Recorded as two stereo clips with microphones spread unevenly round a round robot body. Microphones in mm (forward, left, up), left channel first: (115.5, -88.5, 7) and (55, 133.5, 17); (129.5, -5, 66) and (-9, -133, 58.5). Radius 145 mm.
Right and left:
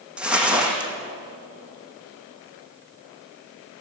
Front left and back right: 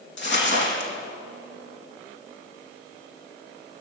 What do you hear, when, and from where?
0.2 s crumpling: 20° left, 5.5 m